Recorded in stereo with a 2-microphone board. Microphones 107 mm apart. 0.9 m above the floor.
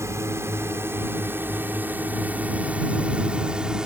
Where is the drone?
25° right (ahead or behind); by 3.9 s 5° right (ahead or behind).